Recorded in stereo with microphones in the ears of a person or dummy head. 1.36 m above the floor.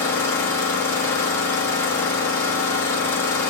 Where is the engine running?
15° left (ahead or behind), 1.2 m.